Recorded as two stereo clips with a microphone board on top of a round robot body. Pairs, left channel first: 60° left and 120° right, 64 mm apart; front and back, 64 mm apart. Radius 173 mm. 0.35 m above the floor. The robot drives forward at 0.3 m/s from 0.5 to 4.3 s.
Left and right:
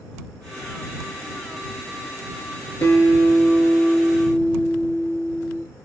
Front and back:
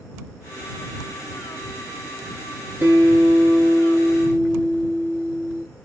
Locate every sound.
2.8 s a guitar: 115° left, 1.3 m; by 5.6 s 130° left, 1.6 m